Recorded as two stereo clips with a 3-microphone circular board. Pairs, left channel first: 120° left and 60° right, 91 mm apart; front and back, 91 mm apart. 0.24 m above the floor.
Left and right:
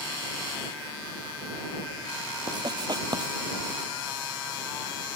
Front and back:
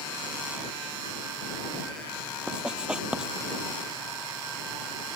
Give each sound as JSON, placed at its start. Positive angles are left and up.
{"t": 2.5, "sound": "writing", "azimuth_deg": -100}